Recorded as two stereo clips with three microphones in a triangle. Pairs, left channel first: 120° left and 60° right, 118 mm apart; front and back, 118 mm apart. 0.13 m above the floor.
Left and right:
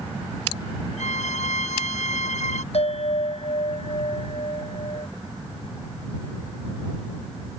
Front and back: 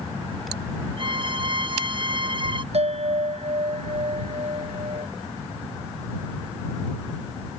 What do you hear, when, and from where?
1.0 s a violin: 135° left
2.7 s a bell: 150° left